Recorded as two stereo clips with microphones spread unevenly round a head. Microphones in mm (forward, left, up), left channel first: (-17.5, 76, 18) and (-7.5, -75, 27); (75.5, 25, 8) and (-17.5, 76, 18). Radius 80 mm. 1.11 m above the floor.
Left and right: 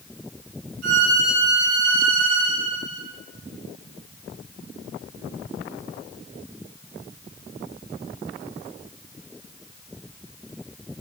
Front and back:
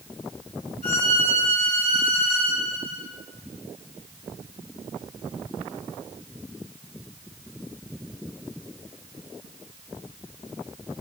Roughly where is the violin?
Right.